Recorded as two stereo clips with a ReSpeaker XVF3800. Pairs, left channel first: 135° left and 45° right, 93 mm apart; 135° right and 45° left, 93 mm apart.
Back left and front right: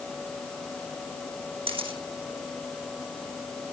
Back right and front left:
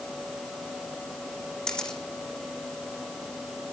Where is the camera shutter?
55° right, 6 m.